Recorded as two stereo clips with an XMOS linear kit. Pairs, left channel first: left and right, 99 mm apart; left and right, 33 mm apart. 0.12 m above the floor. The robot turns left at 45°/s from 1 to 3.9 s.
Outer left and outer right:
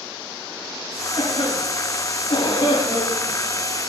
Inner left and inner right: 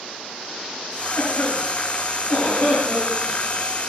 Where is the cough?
55° left (ahead or behind), 7.5 m; by 3.3 s 25° left (ahead or behind), 7.5 m.